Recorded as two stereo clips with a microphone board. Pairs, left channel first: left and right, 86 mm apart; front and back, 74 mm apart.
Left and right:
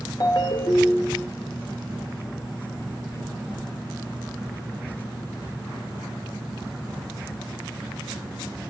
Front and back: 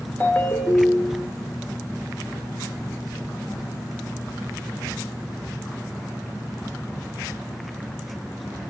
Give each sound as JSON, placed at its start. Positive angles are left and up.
{"t": 0.2, "sound": "a ringtone", "azimuth_deg": 60, "distance_m": 1.2}